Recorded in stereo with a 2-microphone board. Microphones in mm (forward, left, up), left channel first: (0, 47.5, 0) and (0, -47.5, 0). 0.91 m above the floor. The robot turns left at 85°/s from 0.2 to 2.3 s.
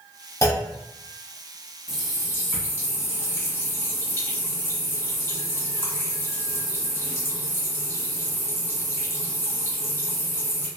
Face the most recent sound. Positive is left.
turn(degrees=150)